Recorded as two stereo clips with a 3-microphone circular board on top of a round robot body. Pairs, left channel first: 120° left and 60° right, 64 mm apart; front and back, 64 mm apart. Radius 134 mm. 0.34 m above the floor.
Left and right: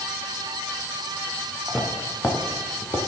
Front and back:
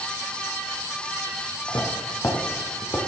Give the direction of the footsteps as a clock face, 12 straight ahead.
11 o'clock.